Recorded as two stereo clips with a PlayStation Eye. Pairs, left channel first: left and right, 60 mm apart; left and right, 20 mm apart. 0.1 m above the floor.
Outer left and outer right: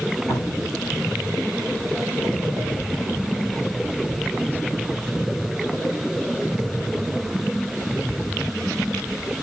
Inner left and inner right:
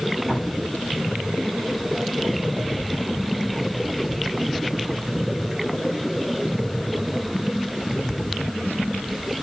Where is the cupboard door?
80° left, 8.5 m.